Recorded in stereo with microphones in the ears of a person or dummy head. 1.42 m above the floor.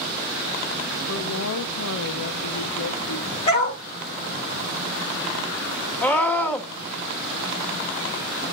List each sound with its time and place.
1.1 s a woman speaking: 75° left (ahead or behind), 0.8 m
3.5 s a dog barking: 35° left (ahead or behind), 5 m
6.0 s a scream: 10° left (ahead or behind), 1.9 m